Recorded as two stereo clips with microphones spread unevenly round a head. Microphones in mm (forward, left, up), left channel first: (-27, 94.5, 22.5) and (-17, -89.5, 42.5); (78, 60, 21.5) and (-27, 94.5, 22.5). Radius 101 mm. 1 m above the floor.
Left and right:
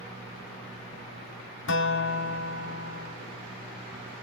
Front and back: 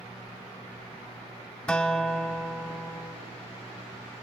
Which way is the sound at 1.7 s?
60° left.